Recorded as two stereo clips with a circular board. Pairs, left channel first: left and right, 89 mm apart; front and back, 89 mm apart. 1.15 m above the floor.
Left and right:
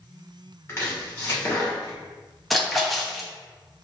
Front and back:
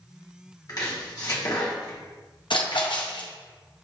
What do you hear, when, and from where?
0.7 s chopping: 35° left, 1.3 m
2.5 s a splash: straight ahead, 0.8 m